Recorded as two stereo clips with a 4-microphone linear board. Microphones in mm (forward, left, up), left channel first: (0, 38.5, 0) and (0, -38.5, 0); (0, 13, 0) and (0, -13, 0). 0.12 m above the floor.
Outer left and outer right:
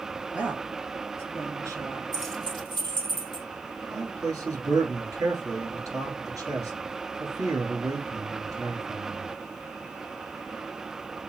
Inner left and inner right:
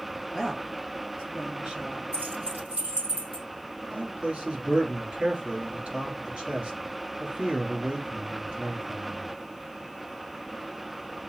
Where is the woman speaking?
20° right (ahead or behind), 1.6 m; by 2.0 s 50° right (ahead or behind), 2 m.